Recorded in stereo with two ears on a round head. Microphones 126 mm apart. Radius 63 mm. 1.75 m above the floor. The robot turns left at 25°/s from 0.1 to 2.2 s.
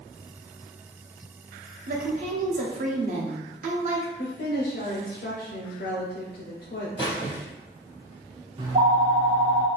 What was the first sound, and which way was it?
A woman speaking, 60° right (ahead or behind).